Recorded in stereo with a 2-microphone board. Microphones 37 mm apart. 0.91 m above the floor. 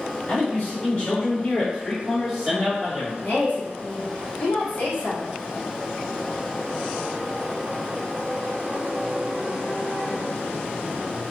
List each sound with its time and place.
0.3 s a man speaking: 45° left (ahead or behind), 1.6 m; by 3.1 s 35° right (ahead or behind), 1.1 m
3.2 s a woman speaking: 55° left (ahead or behind), 1.2 m